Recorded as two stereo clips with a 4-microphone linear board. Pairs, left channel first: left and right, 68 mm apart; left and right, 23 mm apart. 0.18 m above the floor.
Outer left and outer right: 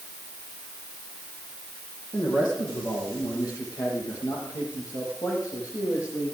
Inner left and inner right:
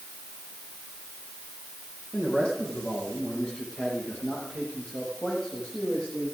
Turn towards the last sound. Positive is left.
turn(degrees=55)  # may be behind; listen again after turning